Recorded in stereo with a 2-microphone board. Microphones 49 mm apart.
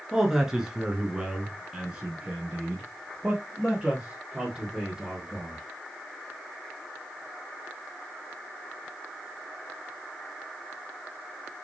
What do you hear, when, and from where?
0.1 s a man speaking: 10° right (ahead or behind), 1.4 m; by 5.6 s 5° right (ahead or behind), 3.5 m